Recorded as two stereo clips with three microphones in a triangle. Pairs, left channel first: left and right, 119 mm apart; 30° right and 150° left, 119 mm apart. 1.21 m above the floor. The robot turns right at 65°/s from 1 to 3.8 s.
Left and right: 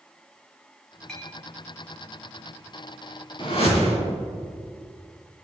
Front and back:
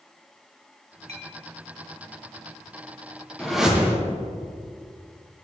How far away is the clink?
About 1.2 m.